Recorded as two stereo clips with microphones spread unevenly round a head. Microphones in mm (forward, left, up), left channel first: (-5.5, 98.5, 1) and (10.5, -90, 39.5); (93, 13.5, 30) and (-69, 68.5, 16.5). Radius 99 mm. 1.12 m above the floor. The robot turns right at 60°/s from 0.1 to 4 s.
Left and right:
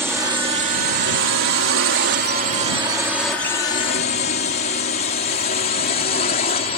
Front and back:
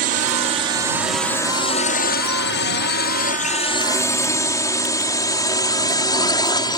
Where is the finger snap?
I don't hear a finger snap.